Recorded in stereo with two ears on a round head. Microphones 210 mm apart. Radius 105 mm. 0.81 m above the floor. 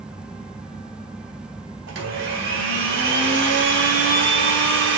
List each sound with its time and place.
1.9 s a blender: 50° right (ahead or behind), 3 m